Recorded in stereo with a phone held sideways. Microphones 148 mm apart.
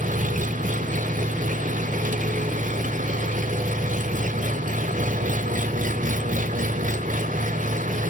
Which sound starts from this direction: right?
An engine running, at 0.0 s.